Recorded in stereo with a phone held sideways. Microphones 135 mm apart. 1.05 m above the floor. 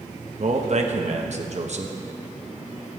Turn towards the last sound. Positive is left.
turn(degrees=-60)  # may be behind; listen again after turning